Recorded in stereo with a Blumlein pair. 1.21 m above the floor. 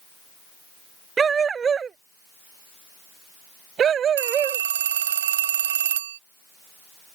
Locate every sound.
1.2 s a dog barking: 20° right; by 4.6 s 25° right
4.2 s a phone ringing: 60° right